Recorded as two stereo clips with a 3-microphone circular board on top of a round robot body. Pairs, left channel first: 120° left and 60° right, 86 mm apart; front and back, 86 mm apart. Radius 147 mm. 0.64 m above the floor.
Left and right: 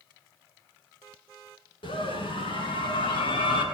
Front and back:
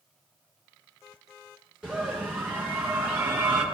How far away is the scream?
About 8.5 m.